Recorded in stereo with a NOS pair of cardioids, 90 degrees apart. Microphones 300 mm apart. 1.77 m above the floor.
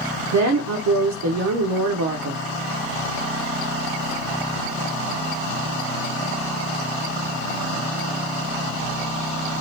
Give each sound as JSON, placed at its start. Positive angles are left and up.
{"t": 0.3, "sound": "a woman speaking", "azimuth_deg": -65, "distance_m": 0.5}